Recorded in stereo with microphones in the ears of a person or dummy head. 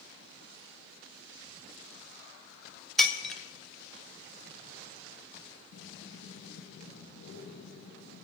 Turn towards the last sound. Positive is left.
turn(degrees=70)  # may be behind; listen again after turning